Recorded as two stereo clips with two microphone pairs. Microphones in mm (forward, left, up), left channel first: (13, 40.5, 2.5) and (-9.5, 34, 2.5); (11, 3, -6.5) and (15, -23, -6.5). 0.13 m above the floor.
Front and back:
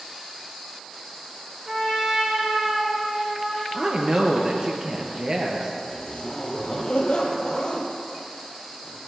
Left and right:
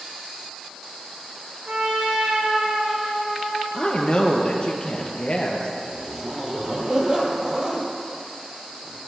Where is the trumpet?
90° right, 4.5 m.